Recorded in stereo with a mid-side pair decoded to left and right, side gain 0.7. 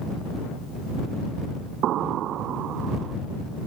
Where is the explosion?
50° right.